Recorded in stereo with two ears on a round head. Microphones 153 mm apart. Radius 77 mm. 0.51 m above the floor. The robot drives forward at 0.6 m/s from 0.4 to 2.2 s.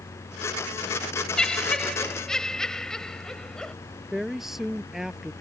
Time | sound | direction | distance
1.4 | laughter | 5° left (ahead or behind) | ?
4.1 | a woman speaking | centre (ahead or behind) | ?